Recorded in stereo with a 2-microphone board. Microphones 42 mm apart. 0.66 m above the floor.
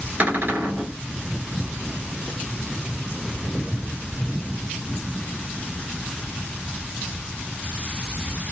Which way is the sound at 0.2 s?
45° right (ahead or behind).